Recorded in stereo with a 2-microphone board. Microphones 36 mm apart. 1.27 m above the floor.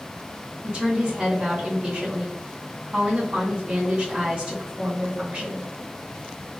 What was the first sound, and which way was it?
A woman speaking, 35° right (ahead or behind).